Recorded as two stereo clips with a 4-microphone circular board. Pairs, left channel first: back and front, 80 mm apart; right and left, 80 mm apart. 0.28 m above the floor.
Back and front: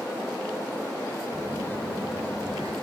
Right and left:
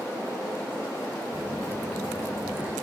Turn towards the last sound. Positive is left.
turn(degrees=25)